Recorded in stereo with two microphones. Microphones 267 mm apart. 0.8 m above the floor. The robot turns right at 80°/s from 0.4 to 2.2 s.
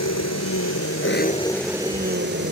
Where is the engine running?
80° left; by 2.5 s 135° right.